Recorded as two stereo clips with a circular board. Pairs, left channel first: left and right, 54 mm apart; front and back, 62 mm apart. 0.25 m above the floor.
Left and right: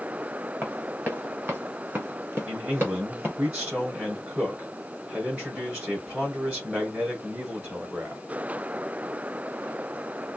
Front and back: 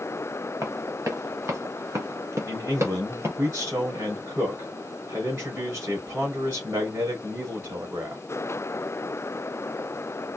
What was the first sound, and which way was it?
Running footsteps, 150° right.